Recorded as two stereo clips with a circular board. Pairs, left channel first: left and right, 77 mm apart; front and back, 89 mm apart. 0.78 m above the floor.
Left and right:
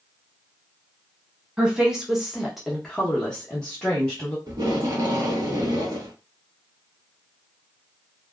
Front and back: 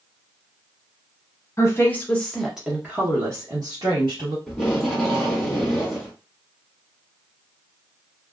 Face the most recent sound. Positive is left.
turn(degrees=-85)